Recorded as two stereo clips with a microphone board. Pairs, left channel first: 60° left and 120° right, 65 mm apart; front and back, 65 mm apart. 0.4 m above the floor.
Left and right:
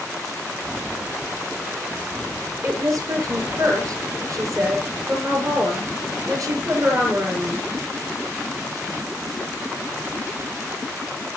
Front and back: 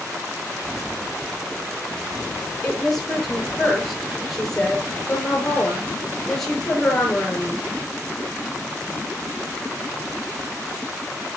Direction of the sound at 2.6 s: 85° right.